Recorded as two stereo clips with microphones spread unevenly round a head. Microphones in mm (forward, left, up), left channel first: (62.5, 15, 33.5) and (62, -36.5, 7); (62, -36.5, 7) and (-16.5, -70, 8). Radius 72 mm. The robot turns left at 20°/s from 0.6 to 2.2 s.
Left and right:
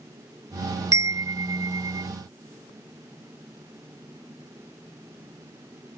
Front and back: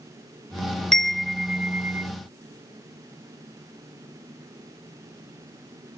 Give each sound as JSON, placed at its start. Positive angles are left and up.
{"t": 0.9, "sound": "a chime", "azimuth_deg": -65}